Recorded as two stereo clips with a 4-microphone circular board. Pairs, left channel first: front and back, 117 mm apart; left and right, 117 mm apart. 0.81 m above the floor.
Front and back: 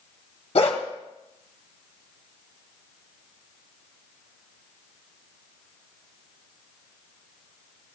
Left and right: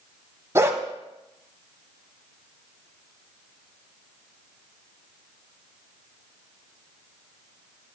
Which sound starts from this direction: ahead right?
A dog barking, at 0.6 s.